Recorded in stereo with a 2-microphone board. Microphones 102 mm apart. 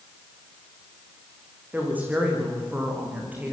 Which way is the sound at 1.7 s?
15° right (ahead or behind).